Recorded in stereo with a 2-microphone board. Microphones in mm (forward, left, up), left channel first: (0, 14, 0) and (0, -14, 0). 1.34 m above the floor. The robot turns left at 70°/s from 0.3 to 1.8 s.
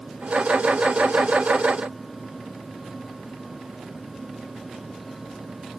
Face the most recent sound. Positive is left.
No sound to turn to.